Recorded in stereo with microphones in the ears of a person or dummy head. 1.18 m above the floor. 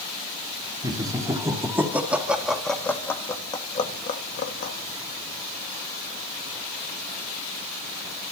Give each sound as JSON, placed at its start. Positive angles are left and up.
{"t": 0.8, "sound": "laughter", "side_deg": -25, "distance_m": 4.0}